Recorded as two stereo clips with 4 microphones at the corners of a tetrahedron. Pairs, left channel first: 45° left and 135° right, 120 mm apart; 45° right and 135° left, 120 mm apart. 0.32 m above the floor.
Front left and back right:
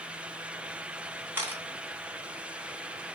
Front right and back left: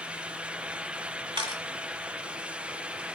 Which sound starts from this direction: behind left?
A camera shutter, at 1.4 s.